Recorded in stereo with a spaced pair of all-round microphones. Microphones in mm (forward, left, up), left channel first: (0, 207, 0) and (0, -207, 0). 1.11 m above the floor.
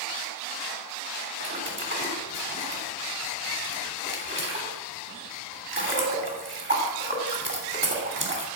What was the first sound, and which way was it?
A splash, 30° right (ahead or behind).